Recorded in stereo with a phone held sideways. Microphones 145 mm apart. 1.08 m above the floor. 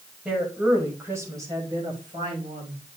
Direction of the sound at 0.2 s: 5° right (ahead or behind).